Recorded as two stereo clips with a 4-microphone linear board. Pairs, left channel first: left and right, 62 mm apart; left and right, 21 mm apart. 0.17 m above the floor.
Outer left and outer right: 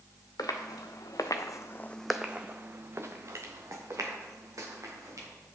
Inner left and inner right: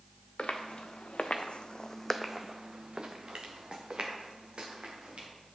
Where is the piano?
No piano in this recording.